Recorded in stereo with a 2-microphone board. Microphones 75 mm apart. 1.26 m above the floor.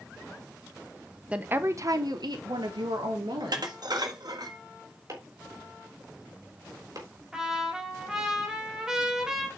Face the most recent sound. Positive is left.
turn(degrees=-10)  # may be behind; listen again after turning